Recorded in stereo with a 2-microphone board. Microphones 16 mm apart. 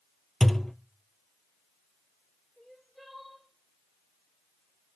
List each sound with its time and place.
0.4 s a thud: 35° left (ahead or behind), 0.6 m
2.6 s crying: 10° left (ahead or behind), 9 m